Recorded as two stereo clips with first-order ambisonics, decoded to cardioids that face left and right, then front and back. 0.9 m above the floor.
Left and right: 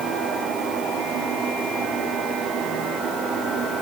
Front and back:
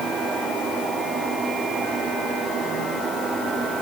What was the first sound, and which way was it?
Only background noise.